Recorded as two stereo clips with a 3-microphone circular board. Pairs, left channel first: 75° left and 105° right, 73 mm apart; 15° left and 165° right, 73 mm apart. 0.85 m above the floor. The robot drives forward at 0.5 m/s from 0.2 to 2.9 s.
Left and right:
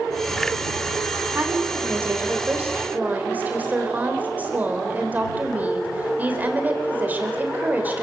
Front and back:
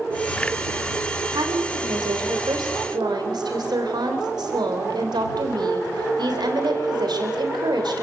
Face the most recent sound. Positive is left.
turn(degrees=-170)